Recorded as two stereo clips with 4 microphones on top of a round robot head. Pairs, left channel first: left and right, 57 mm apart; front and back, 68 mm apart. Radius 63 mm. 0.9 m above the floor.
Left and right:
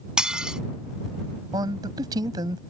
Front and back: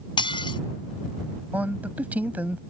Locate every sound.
0.2 s dishes clattering: 15° right
1.5 s a man speaking: 105° right